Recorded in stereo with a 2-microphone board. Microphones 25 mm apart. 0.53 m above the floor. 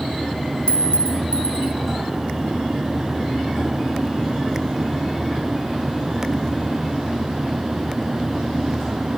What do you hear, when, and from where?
0.7 s a clink: 50° left (ahead or behind), 0.7 m